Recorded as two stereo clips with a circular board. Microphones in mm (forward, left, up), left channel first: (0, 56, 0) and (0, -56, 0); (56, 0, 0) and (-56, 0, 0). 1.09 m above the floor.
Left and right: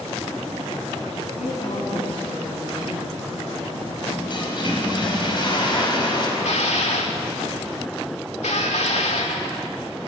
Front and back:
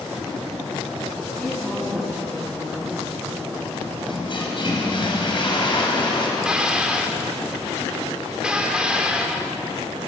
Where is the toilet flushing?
45° left, 4.5 m.